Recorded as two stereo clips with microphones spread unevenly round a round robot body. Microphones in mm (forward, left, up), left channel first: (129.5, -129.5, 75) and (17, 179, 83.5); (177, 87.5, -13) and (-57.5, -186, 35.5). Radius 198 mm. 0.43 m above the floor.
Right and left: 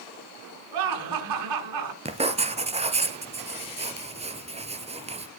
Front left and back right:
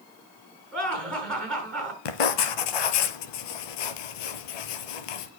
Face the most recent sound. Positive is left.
turn(degrees=40)